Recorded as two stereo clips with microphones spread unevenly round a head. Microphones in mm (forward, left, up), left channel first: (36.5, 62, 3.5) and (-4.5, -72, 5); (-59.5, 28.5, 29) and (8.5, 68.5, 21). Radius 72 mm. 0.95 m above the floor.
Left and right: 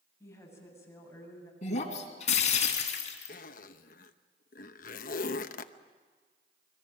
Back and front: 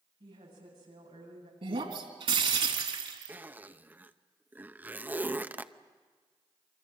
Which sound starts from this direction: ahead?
A woman speaking, at 0.2 s.